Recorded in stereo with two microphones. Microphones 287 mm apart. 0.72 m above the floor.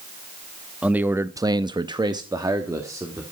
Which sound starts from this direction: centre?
A man speaking, at 0.8 s.